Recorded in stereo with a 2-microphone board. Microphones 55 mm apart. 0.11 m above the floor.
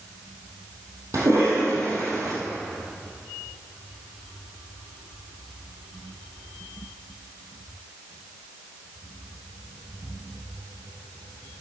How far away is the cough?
About 3 m.